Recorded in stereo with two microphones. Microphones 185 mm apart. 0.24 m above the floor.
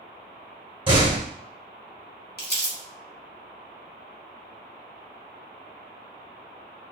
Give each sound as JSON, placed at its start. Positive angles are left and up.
{"t": 0.9, "sound": "a door slam", "side_deg": -30, "distance_m": 1.6}
{"t": 2.4, "sound": "crumpling", "side_deg": 55, "distance_m": 1.0}